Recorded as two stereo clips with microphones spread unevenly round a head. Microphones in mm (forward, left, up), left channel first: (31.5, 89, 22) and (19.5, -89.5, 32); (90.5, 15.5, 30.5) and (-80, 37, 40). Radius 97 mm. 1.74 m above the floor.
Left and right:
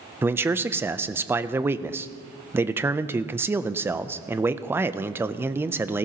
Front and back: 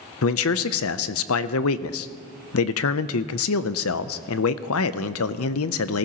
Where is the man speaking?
15° right, 0.5 m.